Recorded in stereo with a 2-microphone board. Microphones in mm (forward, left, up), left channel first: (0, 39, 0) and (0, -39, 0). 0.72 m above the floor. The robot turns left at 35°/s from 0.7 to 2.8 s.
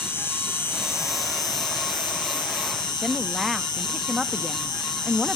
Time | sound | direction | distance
0.0 | an insect | 150° left | 1.5 m
3.0 | a woman speaking | 5° right (ahead or behind) | 0.6 m